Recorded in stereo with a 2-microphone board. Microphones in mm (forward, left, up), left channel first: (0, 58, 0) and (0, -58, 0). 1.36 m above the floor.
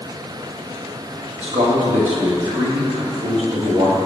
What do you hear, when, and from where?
1.4 s a man speaking: 65° right (ahead or behind), 1.5 m